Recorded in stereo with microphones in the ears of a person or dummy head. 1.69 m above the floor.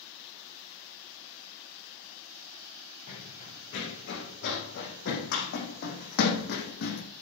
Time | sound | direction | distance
3.1 | running footsteps | 65° left (ahead or behind) | 6 m